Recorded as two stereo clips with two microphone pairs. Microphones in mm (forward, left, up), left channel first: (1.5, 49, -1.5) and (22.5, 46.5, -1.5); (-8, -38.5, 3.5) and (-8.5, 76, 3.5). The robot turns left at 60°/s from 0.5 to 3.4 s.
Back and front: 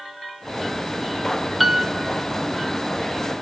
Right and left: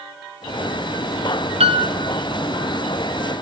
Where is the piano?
75° left, 0.7 m; by 1.9 s 60° left, 0.7 m.